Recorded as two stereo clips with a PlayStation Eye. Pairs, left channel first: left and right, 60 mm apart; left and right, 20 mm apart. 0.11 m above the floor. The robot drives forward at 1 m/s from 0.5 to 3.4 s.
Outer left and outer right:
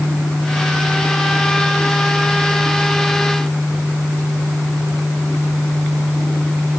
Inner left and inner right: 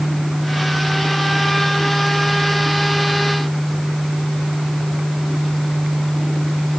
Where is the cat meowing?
I don't hear a cat meowing.